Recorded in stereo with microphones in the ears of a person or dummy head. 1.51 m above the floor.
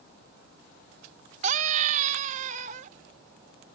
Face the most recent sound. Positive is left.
turn(degrees=-45)  # may be behind; listen again after turning